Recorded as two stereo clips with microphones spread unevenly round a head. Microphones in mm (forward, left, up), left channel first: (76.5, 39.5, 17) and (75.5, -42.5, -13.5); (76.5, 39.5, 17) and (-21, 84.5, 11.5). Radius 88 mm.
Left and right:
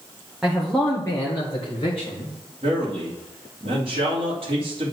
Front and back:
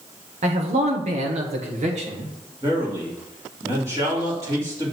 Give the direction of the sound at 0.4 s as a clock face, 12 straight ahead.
6 o'clock.